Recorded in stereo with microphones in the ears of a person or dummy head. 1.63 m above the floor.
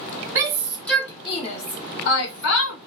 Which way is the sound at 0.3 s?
20° right (ahead or behind).